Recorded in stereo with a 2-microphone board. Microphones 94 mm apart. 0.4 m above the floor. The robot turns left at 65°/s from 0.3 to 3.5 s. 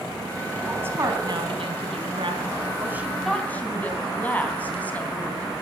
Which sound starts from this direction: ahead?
A woman speaking, at 0.6 s.